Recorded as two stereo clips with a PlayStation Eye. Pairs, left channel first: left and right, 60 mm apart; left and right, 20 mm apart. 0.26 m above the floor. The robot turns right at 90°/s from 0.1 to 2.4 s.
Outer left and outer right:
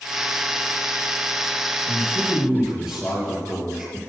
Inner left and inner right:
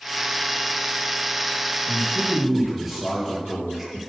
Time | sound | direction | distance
1.9 | a man speaking | 135° left | 6.5 m